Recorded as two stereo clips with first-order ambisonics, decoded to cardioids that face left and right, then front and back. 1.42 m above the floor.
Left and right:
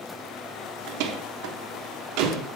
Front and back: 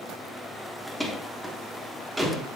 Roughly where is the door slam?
Right.